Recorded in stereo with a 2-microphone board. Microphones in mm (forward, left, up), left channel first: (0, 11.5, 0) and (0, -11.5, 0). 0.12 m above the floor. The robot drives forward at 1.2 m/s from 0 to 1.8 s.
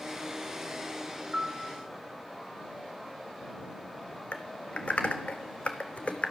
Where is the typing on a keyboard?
50° left (ahead or behind), 1.1 m.